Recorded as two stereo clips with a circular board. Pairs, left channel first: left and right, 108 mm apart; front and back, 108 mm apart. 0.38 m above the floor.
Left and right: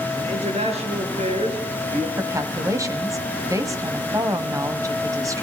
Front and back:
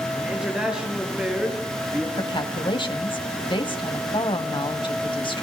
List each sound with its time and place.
0.2 s a man speaking: 100° right, 7.5 m
2.2 s a woman speaking: 35° right, 2.5 m